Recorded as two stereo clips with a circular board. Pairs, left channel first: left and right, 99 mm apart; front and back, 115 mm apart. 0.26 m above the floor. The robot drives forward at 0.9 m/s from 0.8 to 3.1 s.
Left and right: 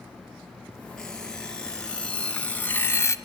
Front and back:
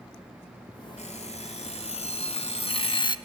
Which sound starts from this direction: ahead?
An alarm clock, at 1.0 s.